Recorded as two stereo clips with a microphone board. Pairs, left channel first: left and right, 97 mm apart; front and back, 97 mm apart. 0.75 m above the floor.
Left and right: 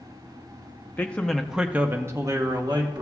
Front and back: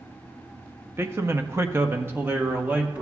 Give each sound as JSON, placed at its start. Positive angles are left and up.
{"t": 1.0, "sound": "a man speaking", "azimuth_deg": 140, "distance_m": 0.8}